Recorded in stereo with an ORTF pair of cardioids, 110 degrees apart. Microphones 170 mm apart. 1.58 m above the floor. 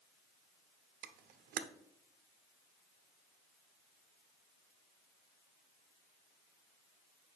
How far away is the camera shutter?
About 0.7 m.